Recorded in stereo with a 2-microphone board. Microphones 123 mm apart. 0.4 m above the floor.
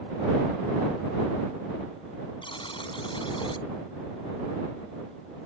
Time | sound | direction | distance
2.4 | a buzzer | 45° left (ahead or behind) | ?